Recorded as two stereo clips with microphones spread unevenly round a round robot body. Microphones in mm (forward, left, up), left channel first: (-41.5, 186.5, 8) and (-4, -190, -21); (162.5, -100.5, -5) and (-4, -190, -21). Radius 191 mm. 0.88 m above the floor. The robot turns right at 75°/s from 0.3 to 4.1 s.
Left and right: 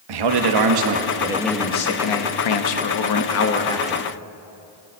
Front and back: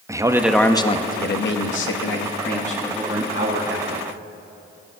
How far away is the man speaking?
About 1.1 m.